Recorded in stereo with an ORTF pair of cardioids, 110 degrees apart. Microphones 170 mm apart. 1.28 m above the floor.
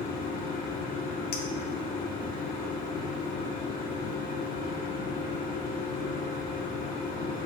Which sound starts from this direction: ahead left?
A machine running, at 0.0 s.